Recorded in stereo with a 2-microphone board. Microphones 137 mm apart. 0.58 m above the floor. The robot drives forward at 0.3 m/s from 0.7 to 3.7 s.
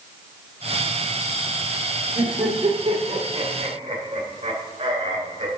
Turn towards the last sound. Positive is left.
turn(degrees=-55)  # may be behind; listen again after turning